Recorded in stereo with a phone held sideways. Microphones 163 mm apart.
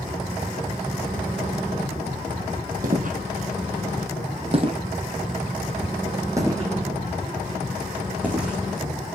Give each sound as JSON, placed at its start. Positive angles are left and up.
{"t": 2.8, "sound": "footsteps", "side_deg": -60, "distance_m": 2.0}